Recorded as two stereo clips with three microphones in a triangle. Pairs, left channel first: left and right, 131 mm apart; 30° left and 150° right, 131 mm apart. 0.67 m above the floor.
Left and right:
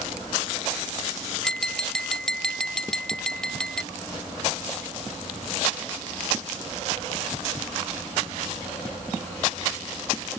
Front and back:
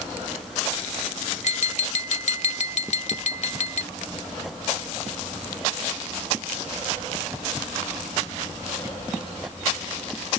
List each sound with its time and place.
1.4 s tapping: 5° left